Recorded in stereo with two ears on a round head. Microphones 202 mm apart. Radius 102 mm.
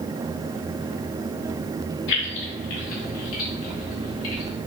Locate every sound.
2.1 s keys jangling: 55° left (ahead or behind), 3 m; by 4.6 s 75° left (ahead or behind), 3.5 m